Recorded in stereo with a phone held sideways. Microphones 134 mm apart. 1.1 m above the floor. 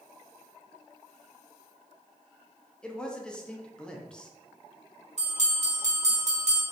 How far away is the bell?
About 1.2 m.